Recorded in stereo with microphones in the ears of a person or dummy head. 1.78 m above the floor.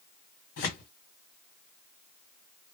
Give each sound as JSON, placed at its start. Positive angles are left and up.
{"t": 0.6, "sound": "tearing paper", "side_deg": 50, "distance_m": 1.5}